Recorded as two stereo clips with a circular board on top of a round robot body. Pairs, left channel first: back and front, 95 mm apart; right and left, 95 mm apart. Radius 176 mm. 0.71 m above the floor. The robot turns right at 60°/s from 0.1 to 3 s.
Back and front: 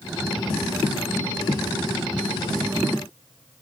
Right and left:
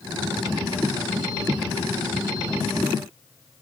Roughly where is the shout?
No shout in this recording.